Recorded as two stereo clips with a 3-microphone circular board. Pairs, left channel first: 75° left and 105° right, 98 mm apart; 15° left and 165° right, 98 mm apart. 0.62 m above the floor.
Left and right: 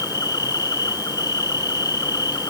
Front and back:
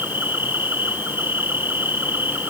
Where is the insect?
125° left.